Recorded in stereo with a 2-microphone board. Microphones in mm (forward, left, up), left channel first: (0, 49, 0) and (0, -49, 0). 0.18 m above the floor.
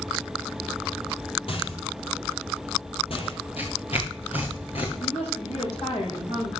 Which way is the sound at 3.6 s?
70° left (ahead or behind).